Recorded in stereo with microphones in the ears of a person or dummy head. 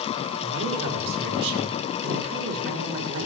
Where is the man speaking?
35° right (ahead or behind), 4.5 m.